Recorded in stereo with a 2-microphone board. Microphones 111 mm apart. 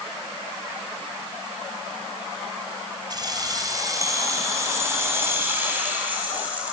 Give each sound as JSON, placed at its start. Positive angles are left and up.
{"t": 3.1, "sound": "keys jangling", "side_deg": -40, "distance_m": 3.0}